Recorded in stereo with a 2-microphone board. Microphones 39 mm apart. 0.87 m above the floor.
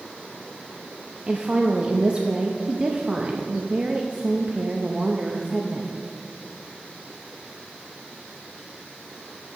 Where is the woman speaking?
30° right (ahead or behind), 0.6 m.